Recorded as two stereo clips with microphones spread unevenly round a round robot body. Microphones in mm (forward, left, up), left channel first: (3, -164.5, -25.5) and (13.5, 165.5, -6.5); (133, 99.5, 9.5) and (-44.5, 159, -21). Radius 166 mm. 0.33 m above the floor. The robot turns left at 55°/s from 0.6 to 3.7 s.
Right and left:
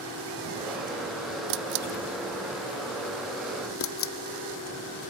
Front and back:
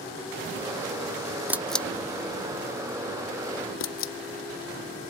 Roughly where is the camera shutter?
Left.